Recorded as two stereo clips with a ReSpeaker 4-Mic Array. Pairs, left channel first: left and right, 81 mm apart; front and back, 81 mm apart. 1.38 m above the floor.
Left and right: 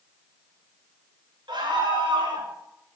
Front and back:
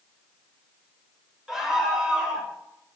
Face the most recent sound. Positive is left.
turn(degrees=-100)